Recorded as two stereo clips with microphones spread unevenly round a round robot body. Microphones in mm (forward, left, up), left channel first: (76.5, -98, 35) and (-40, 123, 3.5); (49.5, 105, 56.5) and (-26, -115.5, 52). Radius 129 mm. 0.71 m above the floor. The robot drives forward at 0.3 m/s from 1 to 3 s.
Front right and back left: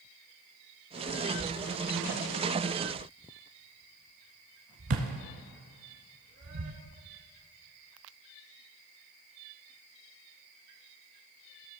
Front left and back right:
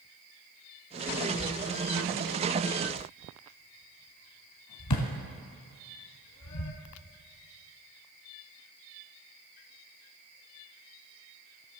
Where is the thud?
70° left, 1.4 m; by 6.7 s 90° left, 1.3 m.